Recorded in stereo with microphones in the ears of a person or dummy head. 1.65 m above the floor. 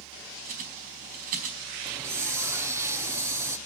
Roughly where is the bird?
Right.